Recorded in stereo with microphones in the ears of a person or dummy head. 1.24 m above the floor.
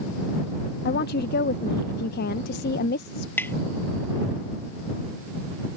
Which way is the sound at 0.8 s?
60° left (ahead or behind).